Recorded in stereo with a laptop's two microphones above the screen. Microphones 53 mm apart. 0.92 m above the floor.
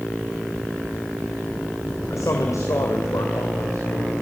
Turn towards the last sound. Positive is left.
turn(degrees=80)